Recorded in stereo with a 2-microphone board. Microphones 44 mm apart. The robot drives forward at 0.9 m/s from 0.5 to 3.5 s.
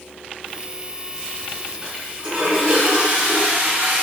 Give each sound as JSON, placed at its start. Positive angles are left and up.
{"t": 1.8, "sound": "a toilet flushing", "side_deg": -20, "distance_m": 4.0}